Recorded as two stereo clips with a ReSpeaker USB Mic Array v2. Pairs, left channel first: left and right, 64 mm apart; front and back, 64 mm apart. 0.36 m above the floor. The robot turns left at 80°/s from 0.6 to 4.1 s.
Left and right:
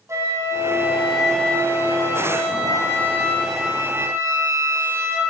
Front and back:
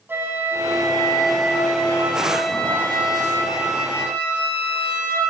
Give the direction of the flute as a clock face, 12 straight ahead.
4 o'clock.